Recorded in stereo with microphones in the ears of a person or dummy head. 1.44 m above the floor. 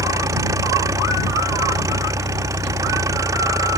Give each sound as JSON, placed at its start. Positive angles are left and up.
{"t": 0.0, "sound": "an engine running", "side_deg": -20}